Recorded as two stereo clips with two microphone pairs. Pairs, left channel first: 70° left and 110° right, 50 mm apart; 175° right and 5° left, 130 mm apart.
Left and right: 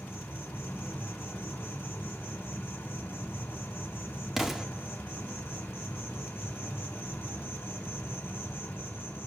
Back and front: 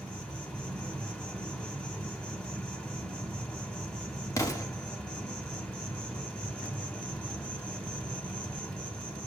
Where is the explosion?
175° left, 1.1 m.